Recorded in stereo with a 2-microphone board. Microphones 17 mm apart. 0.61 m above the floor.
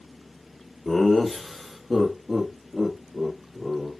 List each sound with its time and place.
0.8 s laughter: 10° left (ahead or behind), 1.1 m; by 3.9 s 20° right (ahead or behind), 2 m